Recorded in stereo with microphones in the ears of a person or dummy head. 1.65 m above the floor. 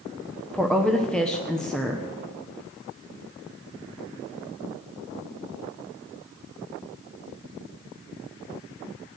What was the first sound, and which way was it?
A woman speaking, 5° left (ahead or behind).